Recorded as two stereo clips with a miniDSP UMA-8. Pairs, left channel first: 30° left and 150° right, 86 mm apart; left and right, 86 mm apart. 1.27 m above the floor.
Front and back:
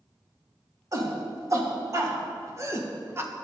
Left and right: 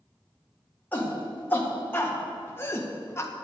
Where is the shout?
160° left, 2.5 m; by 3.3 s 150° left, 1.2 m.